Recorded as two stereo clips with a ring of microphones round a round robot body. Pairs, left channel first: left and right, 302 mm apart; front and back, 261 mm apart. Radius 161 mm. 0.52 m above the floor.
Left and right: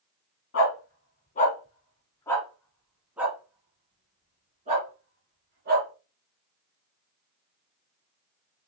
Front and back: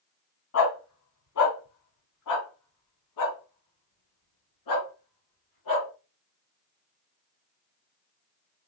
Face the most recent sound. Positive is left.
turn(degrees=-30)